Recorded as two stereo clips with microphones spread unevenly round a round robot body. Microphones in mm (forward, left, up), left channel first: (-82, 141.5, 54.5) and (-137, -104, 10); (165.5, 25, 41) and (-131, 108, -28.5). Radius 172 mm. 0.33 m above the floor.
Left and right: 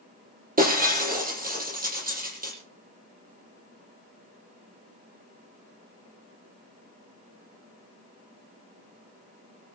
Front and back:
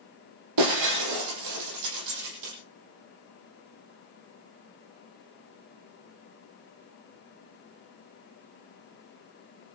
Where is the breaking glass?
160° right, 7 m.